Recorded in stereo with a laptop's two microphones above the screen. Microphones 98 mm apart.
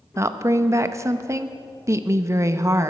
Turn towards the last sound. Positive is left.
turn(degrees=-30)  # may be behind; listen again after turning